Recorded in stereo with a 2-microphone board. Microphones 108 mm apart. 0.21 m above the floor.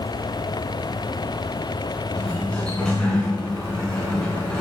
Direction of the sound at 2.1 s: 10° left (ahead or behind).